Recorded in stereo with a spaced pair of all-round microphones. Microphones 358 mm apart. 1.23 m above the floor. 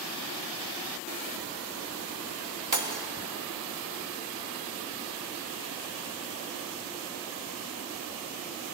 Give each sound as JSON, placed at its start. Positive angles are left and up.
{"t": 2.7, "sound": "breaking glass", "side_deg": -55, "distance_m": 1.3}